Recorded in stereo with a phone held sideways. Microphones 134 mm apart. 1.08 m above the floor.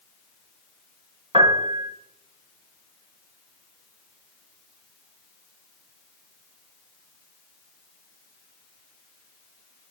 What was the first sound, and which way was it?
A piano, 40° right (ahead or behind).